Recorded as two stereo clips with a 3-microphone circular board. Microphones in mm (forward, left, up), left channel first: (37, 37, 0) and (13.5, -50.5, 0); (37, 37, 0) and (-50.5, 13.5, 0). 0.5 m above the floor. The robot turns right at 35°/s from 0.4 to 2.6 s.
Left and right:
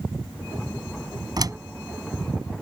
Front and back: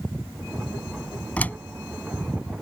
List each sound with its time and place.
1.4 s a door slam: 60° right; by 1.6 s 55° right